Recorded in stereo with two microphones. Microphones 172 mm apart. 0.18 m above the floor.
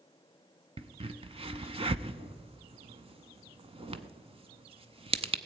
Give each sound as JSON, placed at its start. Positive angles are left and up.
{"t": 0.8, "sound": "a crack", "side_deg": -35, "distance_m": 0.5}